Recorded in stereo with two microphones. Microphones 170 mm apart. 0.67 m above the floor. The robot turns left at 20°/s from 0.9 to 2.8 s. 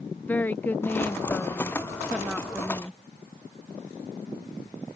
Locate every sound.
0.3 s a woman speaking: 10° left (ahead or behind); by 3.0 s 5° right (ahead or behind)